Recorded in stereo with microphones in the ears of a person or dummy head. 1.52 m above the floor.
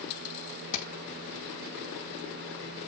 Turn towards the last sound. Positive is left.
turn(degrees=65)  # may be behind; listen again after turning